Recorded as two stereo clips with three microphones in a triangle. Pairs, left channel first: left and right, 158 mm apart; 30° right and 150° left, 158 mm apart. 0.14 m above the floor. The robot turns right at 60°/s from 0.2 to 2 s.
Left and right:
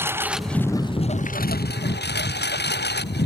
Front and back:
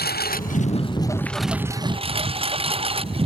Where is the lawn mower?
15° right; by 3.3 s 95° left.